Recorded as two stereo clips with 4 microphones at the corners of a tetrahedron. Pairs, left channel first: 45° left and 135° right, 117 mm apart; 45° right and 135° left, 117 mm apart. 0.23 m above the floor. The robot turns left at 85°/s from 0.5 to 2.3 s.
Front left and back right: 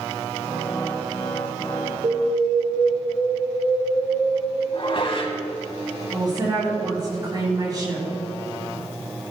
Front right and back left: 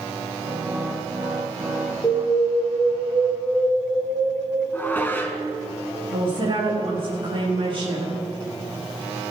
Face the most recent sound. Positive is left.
turn(degrees=170)